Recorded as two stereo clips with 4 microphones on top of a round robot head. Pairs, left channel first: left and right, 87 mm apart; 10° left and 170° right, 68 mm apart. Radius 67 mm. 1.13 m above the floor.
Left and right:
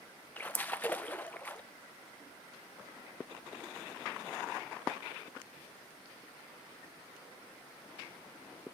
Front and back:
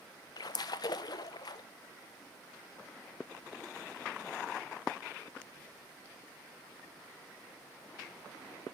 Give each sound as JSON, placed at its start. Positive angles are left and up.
{"t": 0.4, "sound": "a splash", "azimuth_deg": 20, "distance_m": 0.6}